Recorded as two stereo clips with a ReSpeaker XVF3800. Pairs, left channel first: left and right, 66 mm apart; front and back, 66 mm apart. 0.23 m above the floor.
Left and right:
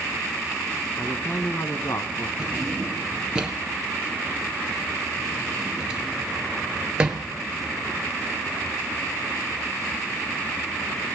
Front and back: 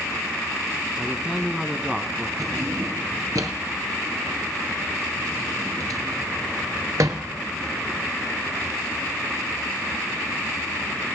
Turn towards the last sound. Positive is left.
turn(degrees=-165)